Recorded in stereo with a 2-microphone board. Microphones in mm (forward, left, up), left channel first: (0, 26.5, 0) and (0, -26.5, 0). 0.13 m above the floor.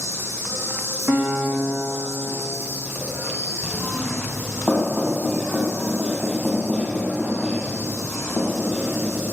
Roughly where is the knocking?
Centre.